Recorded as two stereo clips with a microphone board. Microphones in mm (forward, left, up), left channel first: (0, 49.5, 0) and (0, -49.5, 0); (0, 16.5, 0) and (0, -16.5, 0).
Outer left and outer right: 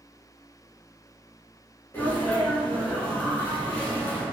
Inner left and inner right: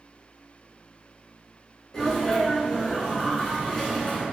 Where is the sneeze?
20° left (ahead or behind), 1.7 m.